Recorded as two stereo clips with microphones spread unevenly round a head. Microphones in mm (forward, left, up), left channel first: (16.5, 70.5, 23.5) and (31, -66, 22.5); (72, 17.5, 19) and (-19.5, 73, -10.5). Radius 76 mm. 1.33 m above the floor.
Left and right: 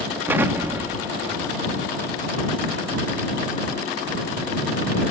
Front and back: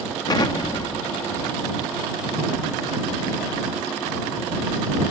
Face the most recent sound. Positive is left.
turn(degrees=-15)